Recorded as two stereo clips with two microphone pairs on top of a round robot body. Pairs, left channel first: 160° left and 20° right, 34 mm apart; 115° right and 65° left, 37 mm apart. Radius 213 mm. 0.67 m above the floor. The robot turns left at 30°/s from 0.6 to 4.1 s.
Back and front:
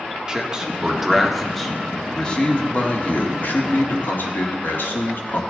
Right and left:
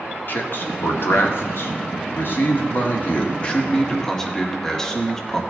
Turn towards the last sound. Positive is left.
turn(degrees=165)